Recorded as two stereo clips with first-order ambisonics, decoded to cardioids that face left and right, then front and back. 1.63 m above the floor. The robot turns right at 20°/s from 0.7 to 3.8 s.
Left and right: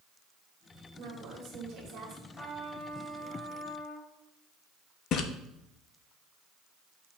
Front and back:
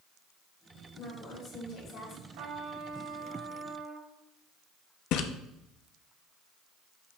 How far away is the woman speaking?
About 2.5 m.